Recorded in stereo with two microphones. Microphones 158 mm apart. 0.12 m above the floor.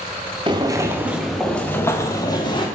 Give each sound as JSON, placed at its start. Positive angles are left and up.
{"t": 0.5, "sound": "footsteps", "side_deg": -30, "distance_m": 1.4}